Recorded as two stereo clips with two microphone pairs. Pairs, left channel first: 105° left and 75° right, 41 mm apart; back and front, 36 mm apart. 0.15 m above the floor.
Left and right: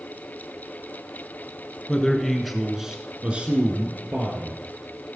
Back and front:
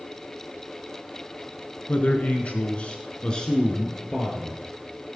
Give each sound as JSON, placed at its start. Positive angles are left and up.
{"t": 1.9, "sound": "a man speaking", "azimuth_deg": 170, "distance_m": 1.5}